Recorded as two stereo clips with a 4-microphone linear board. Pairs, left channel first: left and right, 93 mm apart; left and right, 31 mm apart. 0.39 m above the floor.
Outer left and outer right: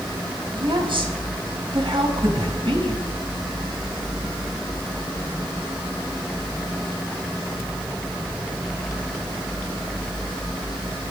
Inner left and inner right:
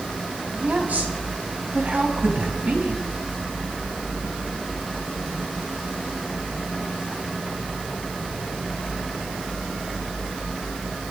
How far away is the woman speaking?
About 3 m.